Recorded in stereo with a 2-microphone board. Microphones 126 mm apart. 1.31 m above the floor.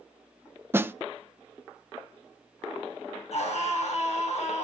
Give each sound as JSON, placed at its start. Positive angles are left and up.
{"t": 0.7, "sound": "a snare drum", "side_deg": -20, "distance_m": 0.6}
{"t": 3.3, "sound": "a scream", "side_deg": 65, "distance_m": 6.5}